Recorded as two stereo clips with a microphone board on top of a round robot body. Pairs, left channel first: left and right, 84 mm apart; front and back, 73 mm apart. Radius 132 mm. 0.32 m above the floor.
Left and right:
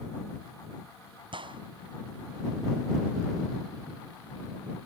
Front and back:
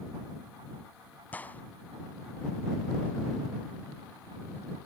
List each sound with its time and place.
1.3 s a gunshot: 70° right